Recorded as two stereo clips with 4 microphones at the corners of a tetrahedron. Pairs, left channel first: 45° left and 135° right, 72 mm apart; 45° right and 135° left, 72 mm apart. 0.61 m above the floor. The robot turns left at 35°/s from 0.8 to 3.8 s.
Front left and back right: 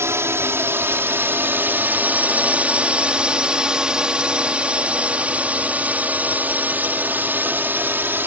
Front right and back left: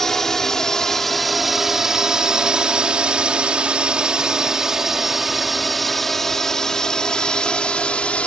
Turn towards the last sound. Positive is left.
turn(degrees=-105)